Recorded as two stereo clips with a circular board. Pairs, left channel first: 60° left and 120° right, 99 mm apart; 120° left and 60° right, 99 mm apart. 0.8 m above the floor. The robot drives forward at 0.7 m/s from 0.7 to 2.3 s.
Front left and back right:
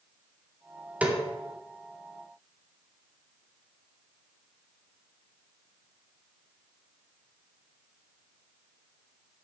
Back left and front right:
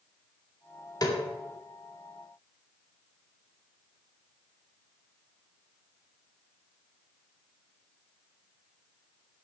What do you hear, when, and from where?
1.0 s a snare drum: 165° left, 2 m